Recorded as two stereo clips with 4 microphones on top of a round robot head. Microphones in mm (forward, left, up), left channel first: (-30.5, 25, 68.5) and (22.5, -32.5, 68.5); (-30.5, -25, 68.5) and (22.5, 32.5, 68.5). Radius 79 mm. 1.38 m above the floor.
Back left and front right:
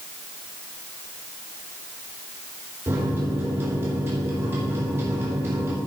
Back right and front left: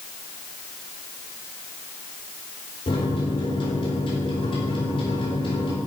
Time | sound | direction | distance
2.9 | a microwave | 110° right | 3.5 m